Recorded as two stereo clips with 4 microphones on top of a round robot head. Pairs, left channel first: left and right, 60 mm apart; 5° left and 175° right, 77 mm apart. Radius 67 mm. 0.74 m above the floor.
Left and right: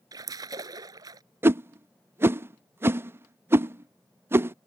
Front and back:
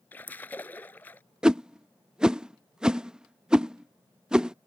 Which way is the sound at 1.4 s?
100° right.